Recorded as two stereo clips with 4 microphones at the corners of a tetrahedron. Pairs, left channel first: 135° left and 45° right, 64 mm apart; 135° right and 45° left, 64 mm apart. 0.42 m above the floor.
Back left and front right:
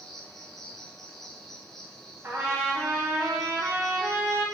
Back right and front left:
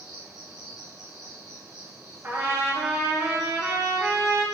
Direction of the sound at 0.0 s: 145° right.